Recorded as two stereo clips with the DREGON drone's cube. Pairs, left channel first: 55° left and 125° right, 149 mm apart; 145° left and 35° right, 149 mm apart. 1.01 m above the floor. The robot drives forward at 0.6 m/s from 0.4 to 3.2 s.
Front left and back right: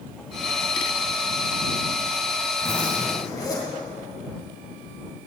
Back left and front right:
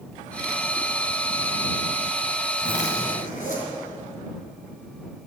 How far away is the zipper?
About 2.5 m.